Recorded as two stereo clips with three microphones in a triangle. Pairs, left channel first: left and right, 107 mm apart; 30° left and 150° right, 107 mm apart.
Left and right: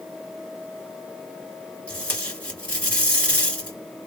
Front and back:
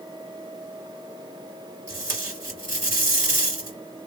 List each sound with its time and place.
1.9 s tape being pulled: 165° left, 2 m